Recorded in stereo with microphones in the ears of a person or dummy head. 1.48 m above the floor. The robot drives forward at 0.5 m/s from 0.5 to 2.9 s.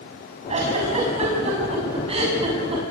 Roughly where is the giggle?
Right.